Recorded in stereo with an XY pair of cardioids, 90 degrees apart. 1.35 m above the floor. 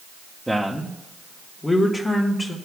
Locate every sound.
0.5 s a man speaking: 5° right, 1.0 m; by 2.5 s 35° left, 1.8 m